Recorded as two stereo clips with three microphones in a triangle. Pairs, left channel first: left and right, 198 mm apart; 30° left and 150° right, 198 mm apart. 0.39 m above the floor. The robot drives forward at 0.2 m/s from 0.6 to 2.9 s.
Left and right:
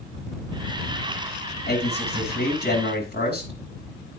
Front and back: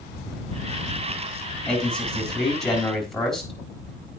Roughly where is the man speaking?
Behind left.